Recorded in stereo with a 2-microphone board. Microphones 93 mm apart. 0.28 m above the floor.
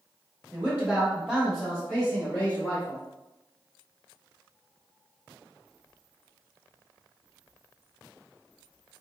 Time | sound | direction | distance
0.5 | a man speaking | 25° right (ahead or behind) | 1.3 m